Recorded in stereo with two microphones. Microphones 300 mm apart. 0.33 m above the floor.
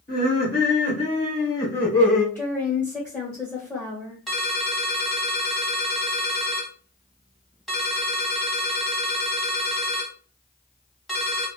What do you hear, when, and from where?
0.1 s laughter: 35° left (ahead or behind), 1.7 m; by 2.2 s centre (ahead or behind), 1.6 m
2.4 s a woman speaking: 5° left (ahead or behind), 1.0 m
4.3 s a ringtone: centre (ahead or behind), 1.0 m